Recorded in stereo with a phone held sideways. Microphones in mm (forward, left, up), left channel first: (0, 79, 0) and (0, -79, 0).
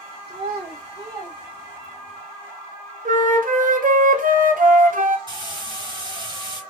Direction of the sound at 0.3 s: 85° right.